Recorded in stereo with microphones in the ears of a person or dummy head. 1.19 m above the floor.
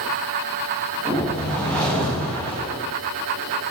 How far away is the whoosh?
About 2.5 m.